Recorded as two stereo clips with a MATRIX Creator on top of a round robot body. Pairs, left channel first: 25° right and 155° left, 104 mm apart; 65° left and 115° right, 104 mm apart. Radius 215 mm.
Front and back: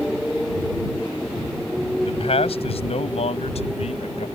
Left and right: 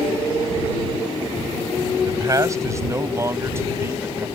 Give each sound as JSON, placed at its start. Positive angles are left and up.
{"t": 2.0, "sound": "a man speaking", "azimuth_deg": -55}